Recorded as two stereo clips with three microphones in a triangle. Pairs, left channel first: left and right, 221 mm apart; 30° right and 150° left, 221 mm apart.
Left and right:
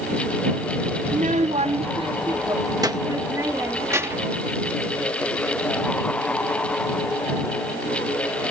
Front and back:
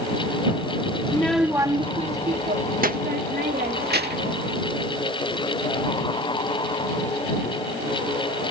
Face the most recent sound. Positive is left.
turn(degrees=-170)